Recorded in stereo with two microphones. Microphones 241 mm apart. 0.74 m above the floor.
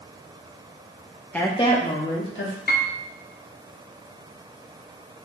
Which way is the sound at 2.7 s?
40° left (ahead or behind).